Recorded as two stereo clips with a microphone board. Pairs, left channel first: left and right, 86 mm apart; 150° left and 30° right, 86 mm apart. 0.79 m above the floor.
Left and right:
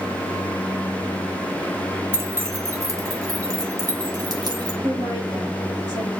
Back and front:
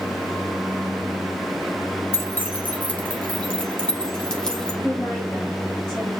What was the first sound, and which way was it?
Keys jangling, 150° right.